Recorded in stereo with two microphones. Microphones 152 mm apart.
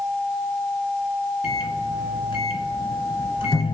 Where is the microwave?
30° left (ahead or behind), 2 m.